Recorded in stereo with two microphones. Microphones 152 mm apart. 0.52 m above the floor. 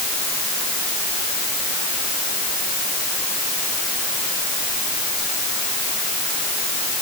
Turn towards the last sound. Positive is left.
No sound to turn to.